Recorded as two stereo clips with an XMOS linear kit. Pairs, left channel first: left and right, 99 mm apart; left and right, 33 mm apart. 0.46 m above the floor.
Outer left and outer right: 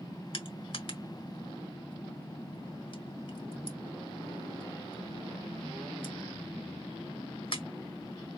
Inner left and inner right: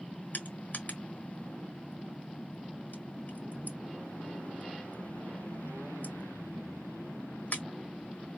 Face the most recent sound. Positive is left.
turn(degrees=65)  # may be behind; listen again after turning